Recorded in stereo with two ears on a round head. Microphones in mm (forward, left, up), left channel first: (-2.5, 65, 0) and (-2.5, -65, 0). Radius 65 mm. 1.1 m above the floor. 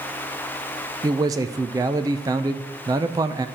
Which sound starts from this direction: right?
A man speaking, at 1.0 s.